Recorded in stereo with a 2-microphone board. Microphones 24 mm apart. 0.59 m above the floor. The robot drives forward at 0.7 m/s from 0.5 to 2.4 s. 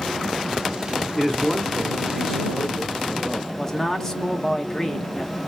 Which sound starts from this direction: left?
A man speaking, at 3.5 s.